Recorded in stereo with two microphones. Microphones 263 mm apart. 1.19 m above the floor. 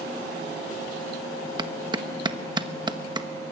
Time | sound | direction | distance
1.6 | a clap | 15° right (ahead or behind) | 1.0 m